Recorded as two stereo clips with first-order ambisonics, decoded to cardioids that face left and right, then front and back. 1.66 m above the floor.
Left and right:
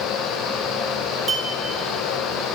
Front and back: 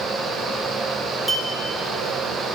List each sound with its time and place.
1.3 s a clink: 85° right, 0.9 m